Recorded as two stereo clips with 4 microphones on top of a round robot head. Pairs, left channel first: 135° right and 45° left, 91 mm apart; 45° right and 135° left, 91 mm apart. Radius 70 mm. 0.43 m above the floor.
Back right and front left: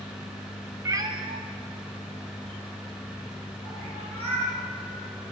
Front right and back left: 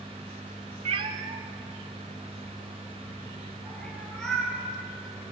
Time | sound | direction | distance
0.8 | a cat meowing | 110° left | 0.6 m